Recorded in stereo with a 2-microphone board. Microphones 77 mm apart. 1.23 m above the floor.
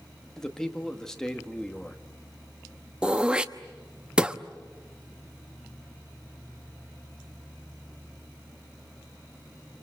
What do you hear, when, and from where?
0.4 s a man speaking: 5° left (ahead or behind), 1.8 m
3.0 s throat clearing: 10° right (ahead or behind), 0.9 m